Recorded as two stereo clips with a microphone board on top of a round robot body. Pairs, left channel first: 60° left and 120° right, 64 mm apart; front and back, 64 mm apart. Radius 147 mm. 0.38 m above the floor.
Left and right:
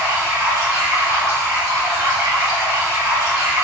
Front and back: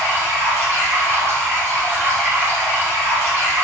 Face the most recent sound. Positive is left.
turn(degrees=-130)